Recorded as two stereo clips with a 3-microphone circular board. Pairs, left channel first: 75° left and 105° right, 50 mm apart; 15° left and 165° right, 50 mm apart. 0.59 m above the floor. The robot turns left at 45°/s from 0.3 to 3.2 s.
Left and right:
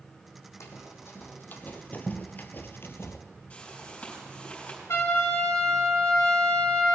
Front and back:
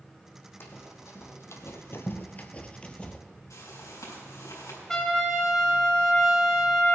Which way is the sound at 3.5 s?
15° left.